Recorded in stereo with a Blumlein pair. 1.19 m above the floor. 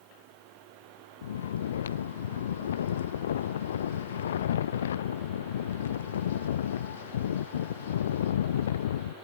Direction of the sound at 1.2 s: 60° left.